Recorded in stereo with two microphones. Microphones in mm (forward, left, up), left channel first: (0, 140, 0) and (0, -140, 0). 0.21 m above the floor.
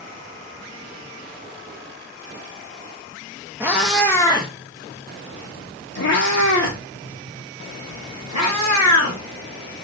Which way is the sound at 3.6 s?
10° right (ahead or behind).